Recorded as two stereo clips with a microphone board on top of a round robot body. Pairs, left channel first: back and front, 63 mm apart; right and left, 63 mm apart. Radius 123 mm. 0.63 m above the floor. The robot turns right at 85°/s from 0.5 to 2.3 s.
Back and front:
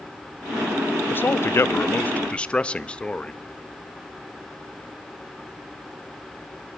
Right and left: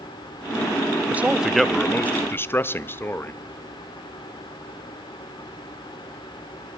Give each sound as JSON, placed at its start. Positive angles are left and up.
{"t": 1.1, "sound": "a man speaking", "azimuth_deg": 140, "distance_m": 0.7}